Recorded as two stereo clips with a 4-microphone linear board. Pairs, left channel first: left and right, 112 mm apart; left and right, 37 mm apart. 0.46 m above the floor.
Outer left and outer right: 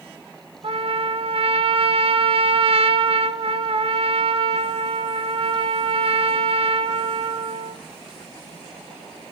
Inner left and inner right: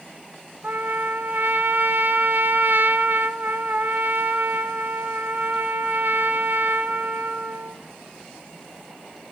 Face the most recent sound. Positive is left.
turn(degrees=-60)  # may be behind; listen again after turning